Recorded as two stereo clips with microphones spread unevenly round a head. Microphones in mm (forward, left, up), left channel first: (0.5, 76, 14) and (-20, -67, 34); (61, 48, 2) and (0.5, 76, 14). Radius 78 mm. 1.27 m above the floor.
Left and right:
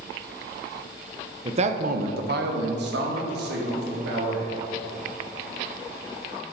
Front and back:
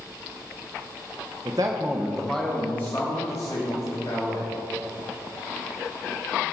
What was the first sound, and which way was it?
A man speaking, 155° right.